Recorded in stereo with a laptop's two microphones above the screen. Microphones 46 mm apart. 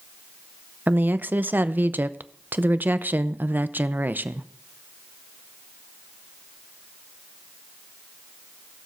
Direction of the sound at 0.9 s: 40° right (ahead or behind).